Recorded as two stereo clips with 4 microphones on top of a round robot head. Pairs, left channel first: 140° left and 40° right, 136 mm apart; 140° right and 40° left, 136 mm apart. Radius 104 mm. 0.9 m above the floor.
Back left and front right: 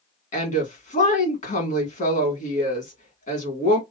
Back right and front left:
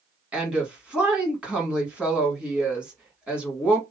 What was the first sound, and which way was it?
A woman speaking, 125° left.